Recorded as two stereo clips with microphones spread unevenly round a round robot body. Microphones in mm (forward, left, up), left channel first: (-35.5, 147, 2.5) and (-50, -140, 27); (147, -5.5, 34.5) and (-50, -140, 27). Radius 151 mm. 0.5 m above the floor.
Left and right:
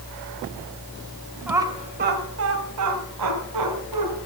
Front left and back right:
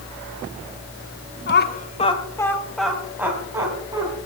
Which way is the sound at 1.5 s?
5° right.